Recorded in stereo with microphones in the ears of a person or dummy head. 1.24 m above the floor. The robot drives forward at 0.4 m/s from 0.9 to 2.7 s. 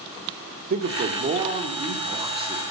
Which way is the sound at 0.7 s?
40° right (ahead or behind).